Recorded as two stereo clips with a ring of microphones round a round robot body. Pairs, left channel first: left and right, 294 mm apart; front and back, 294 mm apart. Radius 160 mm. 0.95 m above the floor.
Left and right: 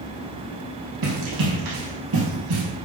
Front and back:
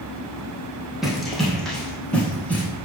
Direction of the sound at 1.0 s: 90° right.